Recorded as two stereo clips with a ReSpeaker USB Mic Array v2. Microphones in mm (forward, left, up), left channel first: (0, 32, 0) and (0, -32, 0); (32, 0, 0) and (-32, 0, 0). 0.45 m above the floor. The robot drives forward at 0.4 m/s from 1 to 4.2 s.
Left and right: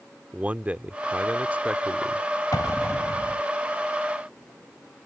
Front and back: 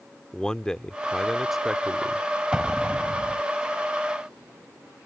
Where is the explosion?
105° left; by 3.4 s 120° left.